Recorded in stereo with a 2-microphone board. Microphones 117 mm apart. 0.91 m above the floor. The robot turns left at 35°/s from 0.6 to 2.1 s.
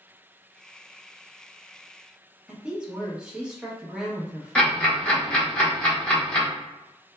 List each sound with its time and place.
2.5 s a woman speaking: 10° right (ahead or behind), 0.9 m
4.5 s ticking: 10° left (ahead or behind), 1.1 m